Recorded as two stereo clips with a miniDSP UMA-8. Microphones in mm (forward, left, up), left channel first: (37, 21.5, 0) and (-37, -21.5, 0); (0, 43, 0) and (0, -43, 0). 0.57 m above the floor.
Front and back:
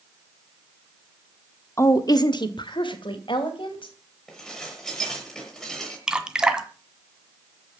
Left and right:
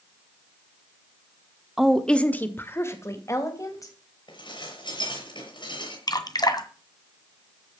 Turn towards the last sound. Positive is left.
turn(degrees=130)